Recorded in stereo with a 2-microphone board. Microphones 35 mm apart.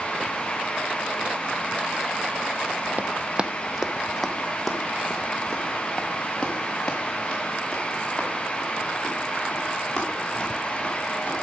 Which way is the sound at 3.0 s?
45° right (ahead or behind).